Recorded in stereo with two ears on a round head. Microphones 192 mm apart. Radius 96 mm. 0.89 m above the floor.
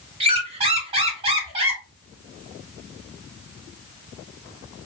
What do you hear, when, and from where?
0.2 s a squeak: 25° right (ahead or behind), 0.8 m